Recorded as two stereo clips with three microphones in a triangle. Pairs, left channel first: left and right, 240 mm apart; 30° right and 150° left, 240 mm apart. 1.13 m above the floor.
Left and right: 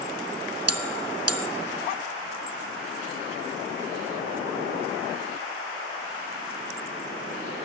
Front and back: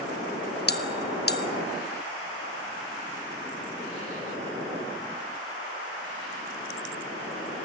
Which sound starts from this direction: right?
A bell, at 0.7 s.